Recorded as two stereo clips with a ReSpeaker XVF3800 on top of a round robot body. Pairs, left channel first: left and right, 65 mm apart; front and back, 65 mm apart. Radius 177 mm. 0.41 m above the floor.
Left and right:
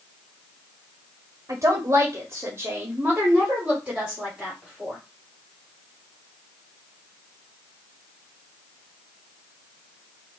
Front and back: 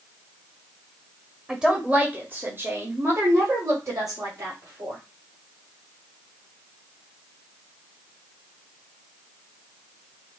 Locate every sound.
1.5 s a woman speaking: 100° right, 1.4 m; by 5.0 s straight behind, 2.5 m